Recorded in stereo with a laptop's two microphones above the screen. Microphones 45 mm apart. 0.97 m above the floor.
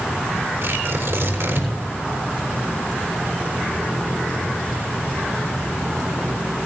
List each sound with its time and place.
0.6 s tearing paper: 75° right (ahead or behind), 5 m